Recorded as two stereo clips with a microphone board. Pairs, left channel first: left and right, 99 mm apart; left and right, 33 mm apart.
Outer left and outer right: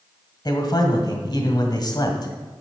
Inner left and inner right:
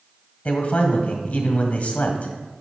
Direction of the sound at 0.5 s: 45° left (ahead or behind).